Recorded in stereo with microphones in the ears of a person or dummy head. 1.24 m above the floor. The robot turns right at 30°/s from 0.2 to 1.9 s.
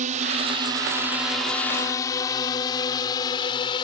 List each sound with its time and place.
0.0 s a drone: 40° right (ahead or behind); by 3.8 s 20° left (ahead or behind)